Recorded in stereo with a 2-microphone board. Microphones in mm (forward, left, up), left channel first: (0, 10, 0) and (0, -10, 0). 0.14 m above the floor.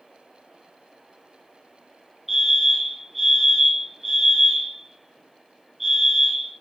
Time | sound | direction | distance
2.3 | a fire alarm | 10° right (ahead or behind) | 7.5 m